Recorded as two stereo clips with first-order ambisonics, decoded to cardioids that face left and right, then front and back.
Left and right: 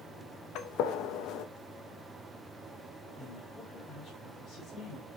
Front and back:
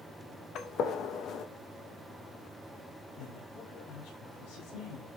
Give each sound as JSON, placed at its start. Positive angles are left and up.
{"t": 0.6, "sound": "a gunshot", "azimuth_deg": 50, "distance_m": 0.9}
{"t": 3.2, "sound": "a woman speaking", "azimuth_deg": 25, "distance_m": 4.0}